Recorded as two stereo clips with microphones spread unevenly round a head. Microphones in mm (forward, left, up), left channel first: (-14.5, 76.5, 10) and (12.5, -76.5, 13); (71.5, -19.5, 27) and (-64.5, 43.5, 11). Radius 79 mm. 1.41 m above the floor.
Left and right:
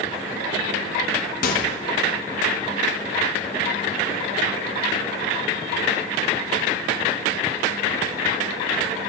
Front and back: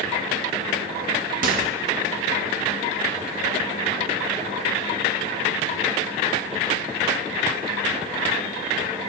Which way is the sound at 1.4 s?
125° left.